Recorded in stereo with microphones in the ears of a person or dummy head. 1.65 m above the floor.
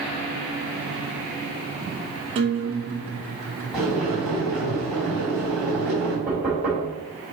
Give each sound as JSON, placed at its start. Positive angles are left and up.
{"t": 2.4, "sound": "a guitar", "side_deg": -35, "distance_m": 1.1}
{"t": 3.7, "sound": "boiling", "side_deg": 0, "distance_m": 3.0}
{"t": 6.3, "sound": "knocking", "side_deg": -5, "distance_m": 3.0}